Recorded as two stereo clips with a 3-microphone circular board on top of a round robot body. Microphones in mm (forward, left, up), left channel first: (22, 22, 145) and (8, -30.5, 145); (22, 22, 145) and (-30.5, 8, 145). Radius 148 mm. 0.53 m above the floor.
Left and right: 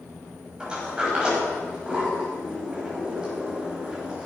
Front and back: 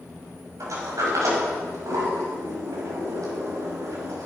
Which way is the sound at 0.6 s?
175° right.